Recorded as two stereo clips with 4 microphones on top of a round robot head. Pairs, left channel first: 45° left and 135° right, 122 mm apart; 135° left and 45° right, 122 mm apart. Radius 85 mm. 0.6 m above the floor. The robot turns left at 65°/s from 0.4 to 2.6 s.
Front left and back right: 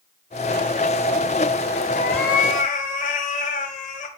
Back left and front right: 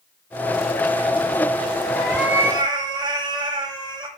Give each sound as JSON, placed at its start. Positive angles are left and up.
{"t": 1.9, "sound": "a cat meowing", "azimuth_deg": 55, "distance_m": 0.7}